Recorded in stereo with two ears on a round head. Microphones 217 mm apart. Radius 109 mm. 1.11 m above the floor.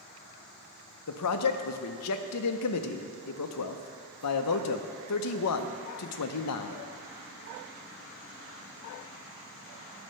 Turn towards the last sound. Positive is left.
turn(degrees=70)  # may be behind; listen again after turning